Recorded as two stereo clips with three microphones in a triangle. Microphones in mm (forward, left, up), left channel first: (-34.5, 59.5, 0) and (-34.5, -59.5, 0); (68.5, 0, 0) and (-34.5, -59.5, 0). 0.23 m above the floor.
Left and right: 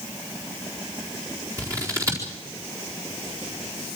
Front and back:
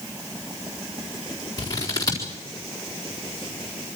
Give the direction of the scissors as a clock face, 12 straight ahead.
1 o'clock.